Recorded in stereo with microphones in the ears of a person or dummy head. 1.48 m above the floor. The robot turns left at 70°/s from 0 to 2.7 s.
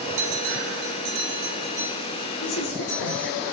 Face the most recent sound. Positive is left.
turn(degrees=60)  # may be behind; listen again after turning